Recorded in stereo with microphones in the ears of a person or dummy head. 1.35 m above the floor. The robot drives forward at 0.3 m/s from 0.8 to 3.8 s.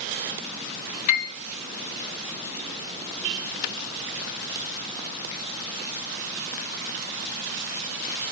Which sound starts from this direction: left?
A piano, at 1.1 s.